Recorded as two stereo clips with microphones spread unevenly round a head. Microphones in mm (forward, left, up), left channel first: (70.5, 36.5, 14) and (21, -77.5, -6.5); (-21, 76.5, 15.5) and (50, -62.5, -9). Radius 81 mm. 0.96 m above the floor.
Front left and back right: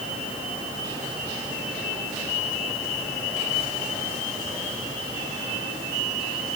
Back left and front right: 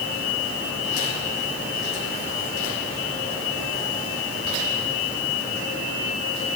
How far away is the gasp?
I don't hear a gasp.